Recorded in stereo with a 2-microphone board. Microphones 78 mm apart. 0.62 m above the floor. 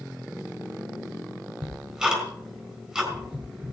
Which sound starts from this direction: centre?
Ticking, at 1.6 s.